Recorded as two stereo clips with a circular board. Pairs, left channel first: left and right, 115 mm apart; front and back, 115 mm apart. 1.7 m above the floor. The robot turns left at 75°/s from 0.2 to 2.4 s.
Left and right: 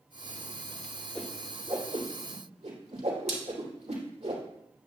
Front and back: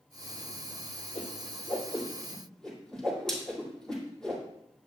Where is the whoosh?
10° left, 2.5 m; by 4.4 s 85° right, 2.5 m.